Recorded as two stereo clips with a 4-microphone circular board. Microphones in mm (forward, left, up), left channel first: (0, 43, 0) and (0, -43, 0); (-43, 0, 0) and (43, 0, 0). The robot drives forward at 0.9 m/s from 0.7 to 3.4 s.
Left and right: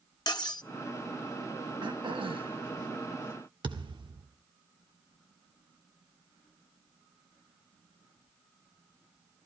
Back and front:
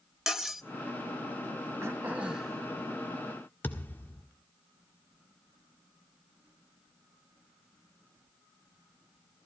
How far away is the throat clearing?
About 1.3 m.